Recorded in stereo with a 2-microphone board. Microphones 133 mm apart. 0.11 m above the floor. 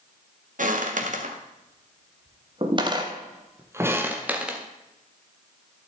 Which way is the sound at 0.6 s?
70° right (ahead or behind).